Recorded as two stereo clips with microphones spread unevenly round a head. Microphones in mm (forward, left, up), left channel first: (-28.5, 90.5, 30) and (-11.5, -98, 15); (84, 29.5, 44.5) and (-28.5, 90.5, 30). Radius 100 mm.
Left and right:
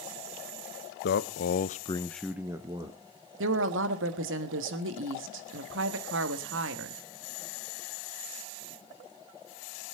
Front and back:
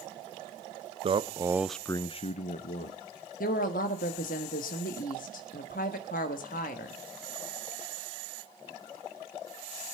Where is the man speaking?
120° left, 1.1 m; by 3.0 s 20° right, 1.6 m.